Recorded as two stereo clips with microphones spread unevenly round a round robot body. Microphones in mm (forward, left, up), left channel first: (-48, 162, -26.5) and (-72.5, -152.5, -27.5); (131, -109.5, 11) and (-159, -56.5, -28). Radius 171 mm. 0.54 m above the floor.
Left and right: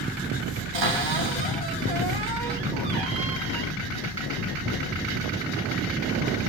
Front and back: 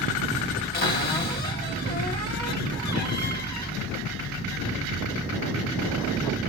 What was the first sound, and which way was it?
A cupboard door, 70° right.